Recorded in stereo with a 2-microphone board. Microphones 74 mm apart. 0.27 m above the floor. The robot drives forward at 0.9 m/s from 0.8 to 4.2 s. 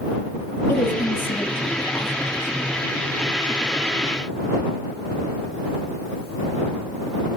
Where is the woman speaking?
30° left (ahead or behind), 8 m; by 2.7 s 35° left (ahead or behind), 7 m.